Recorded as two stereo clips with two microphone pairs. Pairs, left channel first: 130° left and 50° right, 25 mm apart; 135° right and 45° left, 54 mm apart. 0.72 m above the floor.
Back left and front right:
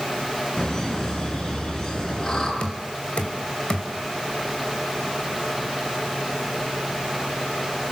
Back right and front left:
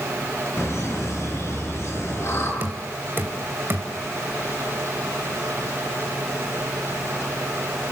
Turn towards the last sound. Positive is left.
turn(degrees=95)